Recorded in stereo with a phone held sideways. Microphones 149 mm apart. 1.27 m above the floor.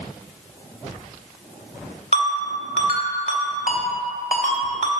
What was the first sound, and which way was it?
A ringtone, 55° left (ahead or behind).